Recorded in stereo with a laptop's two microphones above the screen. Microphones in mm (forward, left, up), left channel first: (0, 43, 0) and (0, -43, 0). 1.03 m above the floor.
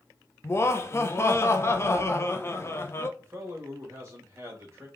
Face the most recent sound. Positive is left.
turn(degrees=-30)  # may be behind; listen again after turning